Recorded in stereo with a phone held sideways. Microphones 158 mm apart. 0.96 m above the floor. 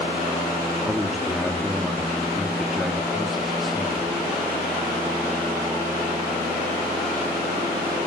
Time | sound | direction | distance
0.8 | a man speaking | centre (ahead or behind) | 2.5 m